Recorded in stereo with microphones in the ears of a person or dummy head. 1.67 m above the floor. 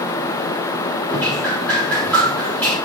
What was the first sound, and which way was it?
Dripping, 10° left (ahead or behind).